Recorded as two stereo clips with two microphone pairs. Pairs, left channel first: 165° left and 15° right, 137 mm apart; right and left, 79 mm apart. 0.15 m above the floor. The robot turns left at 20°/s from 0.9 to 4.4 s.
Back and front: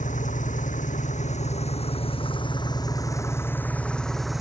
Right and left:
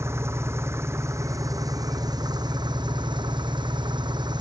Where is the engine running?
145° left; by 4.4 s 75° left.